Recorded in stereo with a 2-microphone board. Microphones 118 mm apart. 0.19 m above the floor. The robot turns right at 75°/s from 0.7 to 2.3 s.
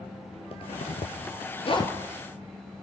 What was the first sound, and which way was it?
A zipper, 50° left (ahead or behind).